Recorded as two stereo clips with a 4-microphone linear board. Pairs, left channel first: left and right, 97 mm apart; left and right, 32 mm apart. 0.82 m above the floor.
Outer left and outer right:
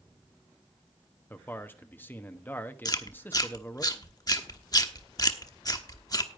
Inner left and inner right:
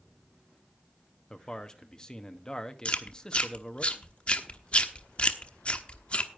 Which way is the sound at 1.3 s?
20° left (ahead or behind).